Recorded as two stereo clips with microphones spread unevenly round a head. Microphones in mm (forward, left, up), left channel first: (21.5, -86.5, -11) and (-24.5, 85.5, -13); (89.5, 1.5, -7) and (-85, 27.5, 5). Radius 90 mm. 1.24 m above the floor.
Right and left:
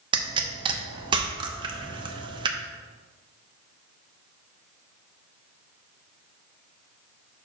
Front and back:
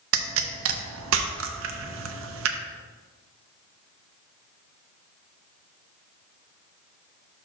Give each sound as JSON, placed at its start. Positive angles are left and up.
{"t": 0.1, "sound": "a pop", "azimuth_deg": 170, "distance_m": 0.7}